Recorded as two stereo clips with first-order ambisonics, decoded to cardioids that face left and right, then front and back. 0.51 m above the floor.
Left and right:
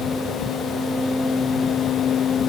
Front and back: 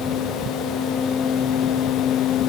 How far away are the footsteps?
No footsteps in this recording.